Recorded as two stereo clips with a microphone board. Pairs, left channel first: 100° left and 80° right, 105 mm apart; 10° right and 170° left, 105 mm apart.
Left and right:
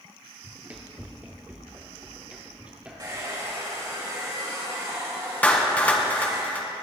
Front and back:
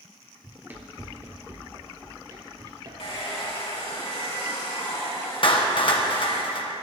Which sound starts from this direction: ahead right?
A hair dryer, at 3.0 s.